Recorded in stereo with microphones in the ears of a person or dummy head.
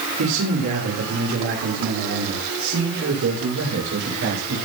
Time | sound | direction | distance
0.2 | a man speaking | 85° right | 5.5 m